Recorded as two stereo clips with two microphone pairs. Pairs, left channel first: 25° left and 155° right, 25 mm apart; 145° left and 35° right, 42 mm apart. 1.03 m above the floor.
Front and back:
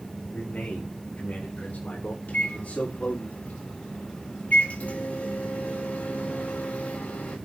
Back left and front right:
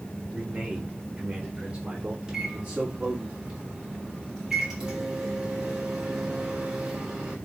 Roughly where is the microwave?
Ahead left.